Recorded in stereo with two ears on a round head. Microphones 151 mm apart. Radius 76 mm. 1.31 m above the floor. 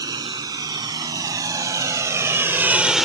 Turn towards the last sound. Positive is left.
turn(degrees=0)  # may be behind; listen again after turning